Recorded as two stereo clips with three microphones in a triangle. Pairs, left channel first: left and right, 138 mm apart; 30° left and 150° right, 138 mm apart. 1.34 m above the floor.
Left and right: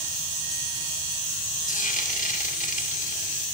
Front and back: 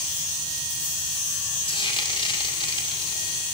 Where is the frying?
75° left, 1.8 m.